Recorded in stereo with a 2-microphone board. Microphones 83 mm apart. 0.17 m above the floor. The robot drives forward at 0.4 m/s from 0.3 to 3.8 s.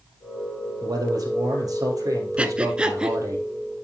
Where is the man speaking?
55° right (ahead or behind), 3.5 m; by 3.4 s 45° right (ahead or behind), 4.5 m.